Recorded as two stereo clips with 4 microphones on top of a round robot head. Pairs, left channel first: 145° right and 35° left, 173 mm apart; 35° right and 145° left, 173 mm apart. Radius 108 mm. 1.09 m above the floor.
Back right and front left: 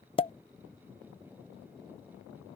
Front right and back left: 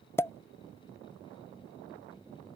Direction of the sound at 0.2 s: 105° right.